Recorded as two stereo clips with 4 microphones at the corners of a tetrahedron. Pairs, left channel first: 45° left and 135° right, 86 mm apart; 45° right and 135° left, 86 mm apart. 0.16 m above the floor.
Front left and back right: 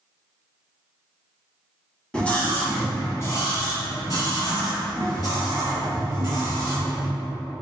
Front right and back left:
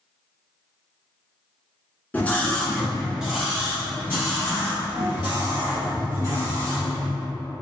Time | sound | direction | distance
2.1 | a scream | 15° right | 1.7 m